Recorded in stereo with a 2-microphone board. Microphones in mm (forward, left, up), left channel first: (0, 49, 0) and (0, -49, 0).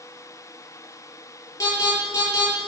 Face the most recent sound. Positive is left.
turn(degrees=35)  # may be behind; listen again after turning